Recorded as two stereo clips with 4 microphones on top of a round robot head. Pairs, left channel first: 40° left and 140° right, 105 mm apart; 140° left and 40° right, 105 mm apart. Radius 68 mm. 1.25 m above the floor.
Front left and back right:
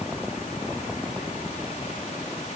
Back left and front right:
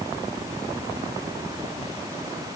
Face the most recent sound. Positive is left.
No sound to turn to.